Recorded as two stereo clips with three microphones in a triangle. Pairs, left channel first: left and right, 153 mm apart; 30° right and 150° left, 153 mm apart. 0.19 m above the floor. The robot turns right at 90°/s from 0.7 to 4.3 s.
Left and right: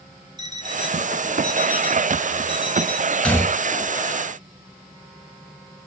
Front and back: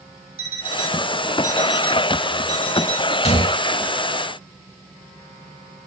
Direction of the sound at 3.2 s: 5° left.